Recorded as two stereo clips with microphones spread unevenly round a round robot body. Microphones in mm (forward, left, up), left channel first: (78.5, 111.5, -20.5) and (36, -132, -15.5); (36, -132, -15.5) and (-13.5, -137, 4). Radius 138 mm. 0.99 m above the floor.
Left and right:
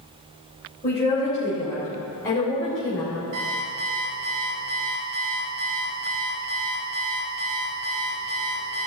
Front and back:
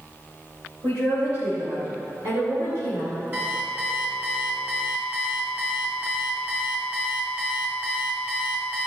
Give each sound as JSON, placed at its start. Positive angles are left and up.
{"t": 0.8, "sound": "a woman speaking", "azimuth_deg": 150, "distance_m": 3.5}
{"t": 3.3, "sound": "an alarm clock", "azimuth_deg": -130, "distance_m": 3.0}